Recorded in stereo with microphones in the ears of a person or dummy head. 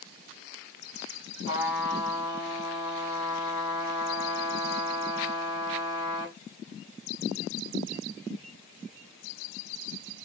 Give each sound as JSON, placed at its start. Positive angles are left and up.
{"t": 1.4, "sound": "a trumpet", "side_deg": 25, "distance_m": 1.4}